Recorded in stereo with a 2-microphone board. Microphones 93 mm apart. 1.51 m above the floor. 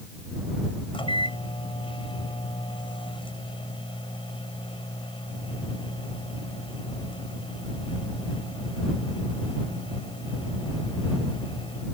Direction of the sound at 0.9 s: 85° left.